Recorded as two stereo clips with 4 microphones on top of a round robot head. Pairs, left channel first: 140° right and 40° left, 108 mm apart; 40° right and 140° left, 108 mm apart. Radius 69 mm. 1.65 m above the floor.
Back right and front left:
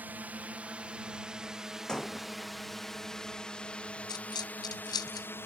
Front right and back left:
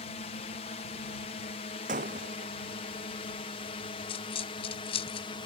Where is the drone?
30° right; by 5.5 s 75° right.